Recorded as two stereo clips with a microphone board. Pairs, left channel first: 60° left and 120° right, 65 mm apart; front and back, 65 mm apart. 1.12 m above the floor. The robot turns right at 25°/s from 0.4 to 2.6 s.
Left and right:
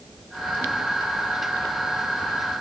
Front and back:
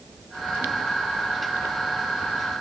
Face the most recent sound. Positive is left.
No sound to turn to.